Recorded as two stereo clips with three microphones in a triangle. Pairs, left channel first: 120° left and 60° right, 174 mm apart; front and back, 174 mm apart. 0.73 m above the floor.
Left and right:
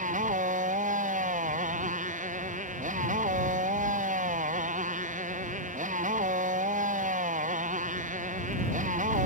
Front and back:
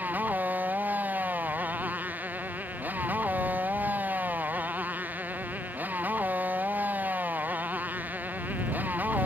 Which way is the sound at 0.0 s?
100° right.